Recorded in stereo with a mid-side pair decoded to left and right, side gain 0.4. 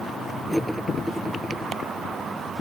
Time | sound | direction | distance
0.5 | cutlery clinking | straight ahead | ?